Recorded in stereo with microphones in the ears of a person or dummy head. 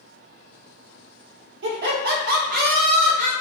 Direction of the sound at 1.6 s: 55° right (ahead or behind).